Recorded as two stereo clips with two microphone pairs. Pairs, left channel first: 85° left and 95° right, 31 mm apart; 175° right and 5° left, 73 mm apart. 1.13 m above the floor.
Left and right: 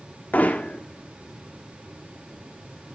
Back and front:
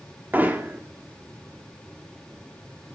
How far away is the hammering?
About 1.6 m.